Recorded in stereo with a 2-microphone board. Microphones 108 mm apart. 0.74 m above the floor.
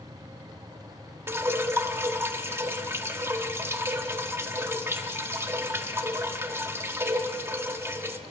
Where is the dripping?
20° right (ahead or behind), 1.0 m.